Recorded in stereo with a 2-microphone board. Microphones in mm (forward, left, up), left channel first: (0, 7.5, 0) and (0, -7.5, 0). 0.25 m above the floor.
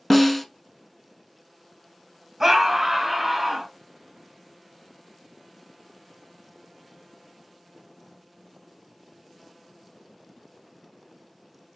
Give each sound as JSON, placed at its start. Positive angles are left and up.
{"t": 0.1, "sound": "a snare drum", "side_deg": 10, "distance_m": 0.7}
{"t": 2.4, "sound": "a scream", "side_deg": -25, "distance_m": 1.2}